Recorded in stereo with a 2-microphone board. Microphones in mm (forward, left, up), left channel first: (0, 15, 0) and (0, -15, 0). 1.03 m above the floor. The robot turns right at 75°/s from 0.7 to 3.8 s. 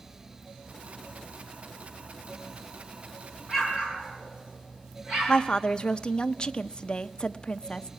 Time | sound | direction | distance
3.5 | an explosion | 5° right (ahead or behind) | 5.5 m
5.3 | a woman speaking | 25° left (ahead or behind) | 0.6 m